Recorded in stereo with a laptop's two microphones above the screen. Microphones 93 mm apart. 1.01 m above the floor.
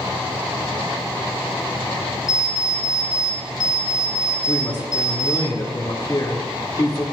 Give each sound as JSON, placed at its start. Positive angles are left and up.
{"t": 2.3, "sound": "an alarm clock", "side_deg": -45, "distance_m": 1.1}
{"t": 4.5, "sound": "a woman speaking", "side_deg": 45, "distance_m": 2.0}